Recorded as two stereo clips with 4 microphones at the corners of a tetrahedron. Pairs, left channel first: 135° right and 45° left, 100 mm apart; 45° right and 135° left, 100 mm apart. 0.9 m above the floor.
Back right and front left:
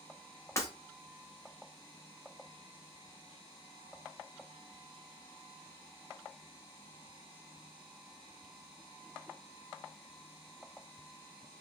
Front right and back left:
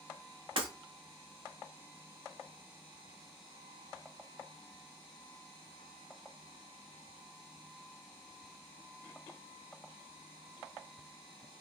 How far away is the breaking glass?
About 1.0 m.